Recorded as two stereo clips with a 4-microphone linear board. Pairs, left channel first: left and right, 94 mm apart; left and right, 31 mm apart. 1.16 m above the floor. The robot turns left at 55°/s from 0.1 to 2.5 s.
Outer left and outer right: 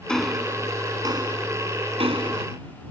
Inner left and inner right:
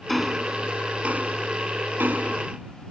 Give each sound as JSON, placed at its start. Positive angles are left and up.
{"t": 0.1, "sound": "ticking", "side_deg": 5}